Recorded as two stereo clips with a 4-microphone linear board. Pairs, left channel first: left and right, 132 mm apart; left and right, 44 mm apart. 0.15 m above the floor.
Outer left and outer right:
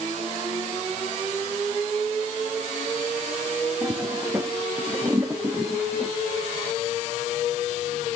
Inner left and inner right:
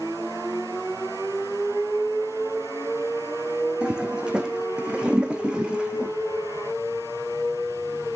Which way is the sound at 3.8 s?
20° right (ahead or behind).